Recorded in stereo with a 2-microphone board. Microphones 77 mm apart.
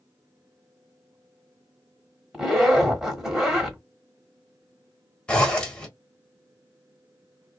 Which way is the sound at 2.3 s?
10° right (ahead or behind).